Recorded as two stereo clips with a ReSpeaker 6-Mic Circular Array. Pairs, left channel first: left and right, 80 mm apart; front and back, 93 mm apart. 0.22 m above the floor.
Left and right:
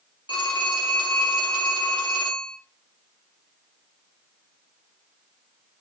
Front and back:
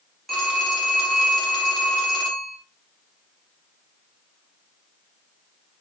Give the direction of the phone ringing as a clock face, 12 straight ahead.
9 o'clock.